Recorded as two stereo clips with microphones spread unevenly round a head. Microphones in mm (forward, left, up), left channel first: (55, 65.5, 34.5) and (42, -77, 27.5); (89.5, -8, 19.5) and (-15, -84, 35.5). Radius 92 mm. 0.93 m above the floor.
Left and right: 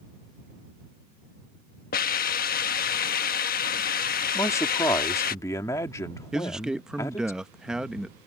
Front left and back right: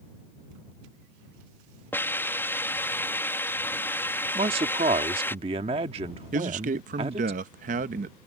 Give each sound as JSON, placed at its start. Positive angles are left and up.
{"t": 1.9, "sound": "a hiss", "azimuth_deg": 110}
{"t": 4.3, "sound": "a man speaking", "azimuth_deg": 160}
{"t": 6.3, "sound": "a man speaking", "azimuth_deg": 180}